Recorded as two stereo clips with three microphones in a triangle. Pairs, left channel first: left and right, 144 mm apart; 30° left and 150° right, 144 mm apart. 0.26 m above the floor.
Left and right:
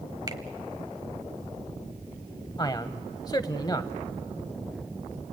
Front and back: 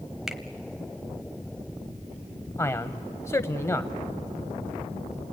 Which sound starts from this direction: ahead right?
A finger snap, at 0.3 s.